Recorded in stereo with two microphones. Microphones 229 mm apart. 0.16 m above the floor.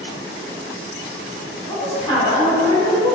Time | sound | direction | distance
1.7 | a woman speaking | 20° left (ahead or behind) | 1.5 m